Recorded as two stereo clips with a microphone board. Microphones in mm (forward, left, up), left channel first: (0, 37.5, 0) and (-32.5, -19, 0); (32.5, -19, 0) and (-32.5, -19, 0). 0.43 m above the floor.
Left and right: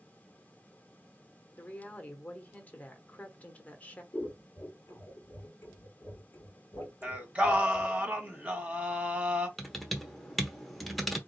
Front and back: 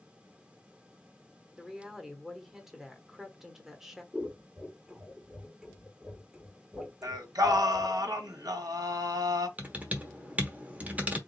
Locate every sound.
1.6 s a woman speaking: 100° left, 1.0 m
4.1 s scissors: 100° left, 1.8 m
7.0 s singing: 170° left, 1.5 m
9.6 s typing on a keyboard: 150° left, 1.0 m